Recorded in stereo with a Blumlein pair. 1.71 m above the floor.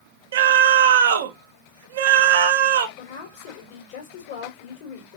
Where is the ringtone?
I don't hear a ringtone.